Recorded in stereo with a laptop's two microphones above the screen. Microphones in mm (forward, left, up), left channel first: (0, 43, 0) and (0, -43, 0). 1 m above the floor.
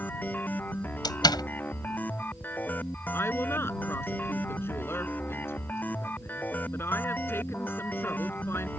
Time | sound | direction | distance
0.0 | a machine running | 20° left (ahead or behind) | ?
1.0 | a door slam | 55° left (ahead or behind) | ?
3.1 | a woman speaking | 25° left (ahead or behind) | ?